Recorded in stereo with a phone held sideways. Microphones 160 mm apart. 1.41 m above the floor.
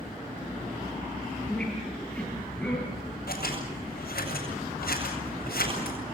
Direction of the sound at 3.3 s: 75° left (ahead or behind).